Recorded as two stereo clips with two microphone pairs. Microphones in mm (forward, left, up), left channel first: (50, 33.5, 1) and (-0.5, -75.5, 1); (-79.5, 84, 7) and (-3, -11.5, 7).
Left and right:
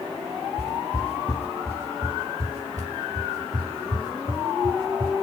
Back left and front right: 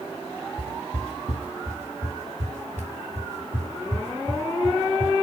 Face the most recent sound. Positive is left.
turn(degrees=-65)